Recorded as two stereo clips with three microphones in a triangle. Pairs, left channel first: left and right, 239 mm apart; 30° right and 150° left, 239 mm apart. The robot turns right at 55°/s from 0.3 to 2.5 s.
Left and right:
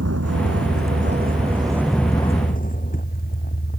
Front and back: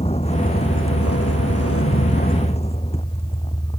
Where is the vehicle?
95° right; by 3.8 s 40° left.